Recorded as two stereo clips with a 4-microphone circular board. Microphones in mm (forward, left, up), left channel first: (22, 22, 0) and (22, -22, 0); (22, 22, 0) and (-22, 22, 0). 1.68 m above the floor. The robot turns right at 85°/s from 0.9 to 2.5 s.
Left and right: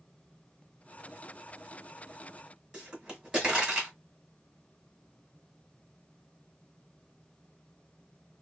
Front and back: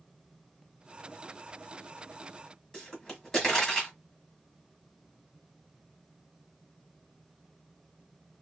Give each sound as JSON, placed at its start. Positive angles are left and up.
{"t": 2.7, "sound": "a pop", "azimuth_deg": -55, "distance_m": 1.7}